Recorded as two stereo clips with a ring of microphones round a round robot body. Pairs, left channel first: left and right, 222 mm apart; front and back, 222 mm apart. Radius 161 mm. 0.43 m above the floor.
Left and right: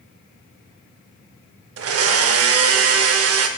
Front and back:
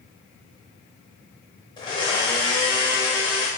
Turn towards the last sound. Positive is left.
turn(degrees=-75)